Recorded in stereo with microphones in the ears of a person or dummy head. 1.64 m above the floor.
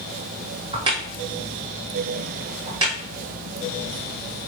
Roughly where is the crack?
Right.